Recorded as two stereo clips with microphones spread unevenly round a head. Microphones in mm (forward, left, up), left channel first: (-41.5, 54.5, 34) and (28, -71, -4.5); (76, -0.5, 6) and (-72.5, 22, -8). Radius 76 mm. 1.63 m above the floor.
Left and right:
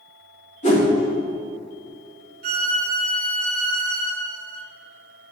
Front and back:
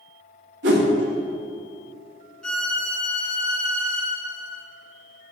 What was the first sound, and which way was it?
A whoosh, 160° left.